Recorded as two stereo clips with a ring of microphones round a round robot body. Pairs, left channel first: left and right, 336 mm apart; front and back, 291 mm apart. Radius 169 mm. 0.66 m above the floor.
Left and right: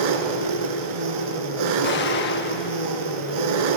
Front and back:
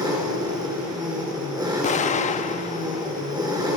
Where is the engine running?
100° right, 2.5 m.